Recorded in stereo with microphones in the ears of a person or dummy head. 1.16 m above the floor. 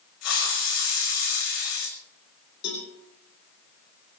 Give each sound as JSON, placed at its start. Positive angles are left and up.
{"t": 0.2, "sound": "a hiss", "side_deg": 75, "distance_m": 6.0}
{"t": 2.6, "sound": "a cowbell", "side_deg": 70, "distance_m": 9.0}